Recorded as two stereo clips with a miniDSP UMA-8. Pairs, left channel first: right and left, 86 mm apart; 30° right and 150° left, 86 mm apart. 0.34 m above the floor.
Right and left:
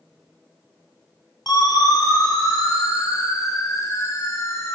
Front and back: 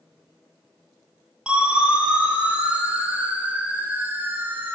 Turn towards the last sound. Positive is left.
turn(degrees=-145)